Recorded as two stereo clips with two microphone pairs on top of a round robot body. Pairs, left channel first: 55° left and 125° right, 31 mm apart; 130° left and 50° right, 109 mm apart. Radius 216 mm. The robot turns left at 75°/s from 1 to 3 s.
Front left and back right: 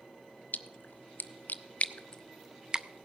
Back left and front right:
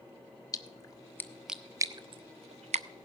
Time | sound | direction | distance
0.5 | a splash | 75° left | 0.5 m